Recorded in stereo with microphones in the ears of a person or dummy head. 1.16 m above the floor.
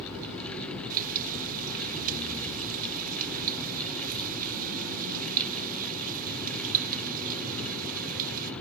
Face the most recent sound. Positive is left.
turn(degrees=-50)  # may be behind; listen again after turning